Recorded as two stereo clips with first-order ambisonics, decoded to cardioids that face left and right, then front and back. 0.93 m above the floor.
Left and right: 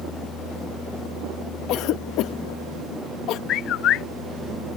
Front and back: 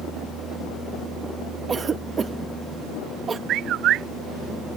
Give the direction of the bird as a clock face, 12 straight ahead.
8 o'clock.